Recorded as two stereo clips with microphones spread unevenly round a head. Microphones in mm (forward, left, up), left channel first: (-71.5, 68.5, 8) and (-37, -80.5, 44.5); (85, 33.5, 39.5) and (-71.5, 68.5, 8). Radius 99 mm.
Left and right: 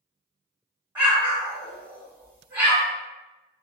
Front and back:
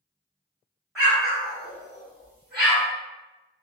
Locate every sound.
0.9 s an explosion: 80° right, 1.5 m